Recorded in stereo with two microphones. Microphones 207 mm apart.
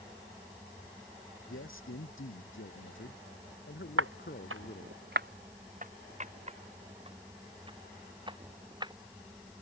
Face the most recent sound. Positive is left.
turn(degrees=-20)  # may be behind; listen again after turning